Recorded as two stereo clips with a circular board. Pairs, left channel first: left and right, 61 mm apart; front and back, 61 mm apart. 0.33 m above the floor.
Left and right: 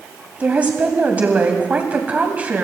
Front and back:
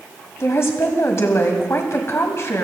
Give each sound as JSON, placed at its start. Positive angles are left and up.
{"t": 0.4, "sound": "a woman speaking", "azimuth_deg": -30, "distance_m": 1.8}